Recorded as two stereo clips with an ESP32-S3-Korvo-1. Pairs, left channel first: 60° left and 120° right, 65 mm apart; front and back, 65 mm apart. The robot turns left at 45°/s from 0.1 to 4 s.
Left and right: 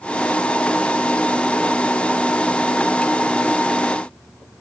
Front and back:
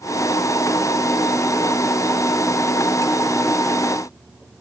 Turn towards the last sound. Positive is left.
No sound to turn to.